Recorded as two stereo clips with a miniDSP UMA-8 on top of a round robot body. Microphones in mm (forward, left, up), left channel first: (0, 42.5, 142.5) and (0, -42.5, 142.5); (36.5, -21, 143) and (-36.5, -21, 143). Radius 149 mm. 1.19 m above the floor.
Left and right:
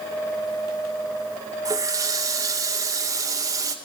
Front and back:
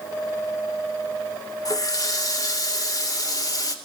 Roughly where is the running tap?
Ahead right.